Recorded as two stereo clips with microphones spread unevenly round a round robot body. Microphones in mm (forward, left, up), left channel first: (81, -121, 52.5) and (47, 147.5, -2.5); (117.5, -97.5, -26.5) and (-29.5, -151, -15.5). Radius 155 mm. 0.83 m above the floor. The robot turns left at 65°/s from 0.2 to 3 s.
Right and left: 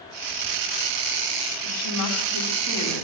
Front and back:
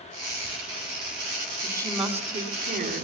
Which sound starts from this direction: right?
A woman speaking, at 1.6 s.